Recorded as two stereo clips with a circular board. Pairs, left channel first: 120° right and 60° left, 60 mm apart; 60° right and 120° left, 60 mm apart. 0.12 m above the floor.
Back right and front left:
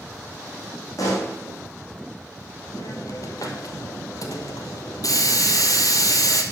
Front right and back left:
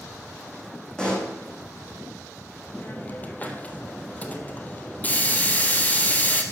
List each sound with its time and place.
1.0 s a pop: 135° right, 3.5 m
2.8 s a hiss: 120° right, 1.6 m